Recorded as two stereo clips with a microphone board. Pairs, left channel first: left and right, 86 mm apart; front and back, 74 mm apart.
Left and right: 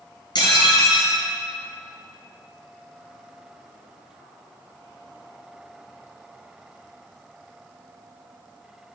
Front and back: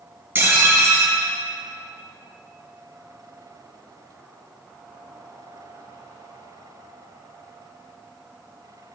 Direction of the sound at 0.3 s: 120° left.